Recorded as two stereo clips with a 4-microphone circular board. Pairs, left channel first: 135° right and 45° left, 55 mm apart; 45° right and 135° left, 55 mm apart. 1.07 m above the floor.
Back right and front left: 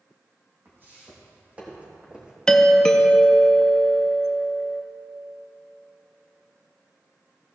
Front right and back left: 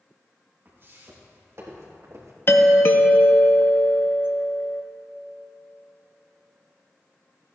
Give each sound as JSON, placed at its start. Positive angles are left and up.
{"t": 0.7, "sound": "footsteps", "azimuth_deg": 90, "distance_m": 3.0}
{"t": 2.5, "sound": "a doorbell", "azimuth_deg": -65, "distance_m": 0.7}